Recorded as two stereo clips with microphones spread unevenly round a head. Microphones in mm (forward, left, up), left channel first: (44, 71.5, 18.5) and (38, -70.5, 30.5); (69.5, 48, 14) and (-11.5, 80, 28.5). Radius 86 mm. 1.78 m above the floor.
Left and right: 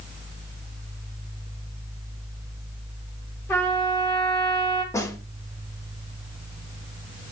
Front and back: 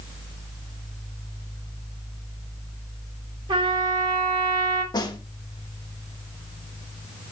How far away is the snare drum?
About 1.9 m.